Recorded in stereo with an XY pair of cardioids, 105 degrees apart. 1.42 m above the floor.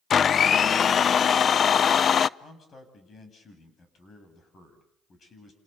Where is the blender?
50° left, 0.5 m.